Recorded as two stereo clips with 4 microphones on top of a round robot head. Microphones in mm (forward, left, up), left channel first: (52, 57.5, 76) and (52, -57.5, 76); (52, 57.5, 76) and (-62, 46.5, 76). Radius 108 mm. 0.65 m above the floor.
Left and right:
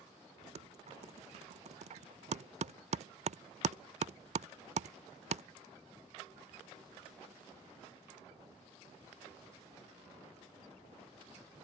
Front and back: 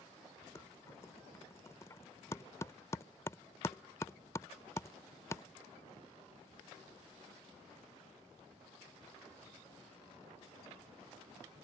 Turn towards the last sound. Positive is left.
turn(degrees=-65)